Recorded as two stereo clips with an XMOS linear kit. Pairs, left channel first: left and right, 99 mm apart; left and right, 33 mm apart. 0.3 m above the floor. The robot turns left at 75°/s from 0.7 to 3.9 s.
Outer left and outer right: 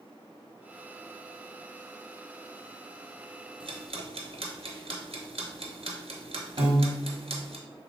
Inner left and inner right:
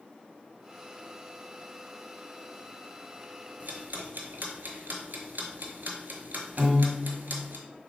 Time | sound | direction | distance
3.6 | ticking | 65° right (ahead or behind) | 0.9 m
6.6 | a piano | 45° right (ahead or behind) | 1.0 m